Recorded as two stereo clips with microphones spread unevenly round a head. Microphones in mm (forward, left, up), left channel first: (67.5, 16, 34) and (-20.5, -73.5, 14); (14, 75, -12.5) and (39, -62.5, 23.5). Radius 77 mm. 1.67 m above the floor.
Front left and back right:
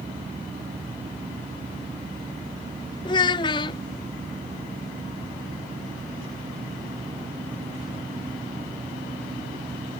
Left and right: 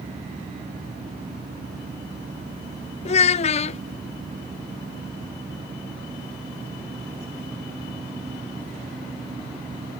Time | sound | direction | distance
3.0 | a child speaking | 65° left | ?